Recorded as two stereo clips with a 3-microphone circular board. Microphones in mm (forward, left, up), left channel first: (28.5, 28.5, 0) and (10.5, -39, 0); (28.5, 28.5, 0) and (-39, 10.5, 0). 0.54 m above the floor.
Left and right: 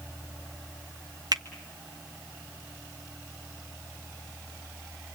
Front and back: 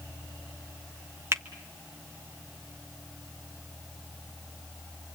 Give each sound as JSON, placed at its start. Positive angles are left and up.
{"t": 1.3, "sound": "a finger snap", "azimuth_deg": -115, "distance_m": 1.5}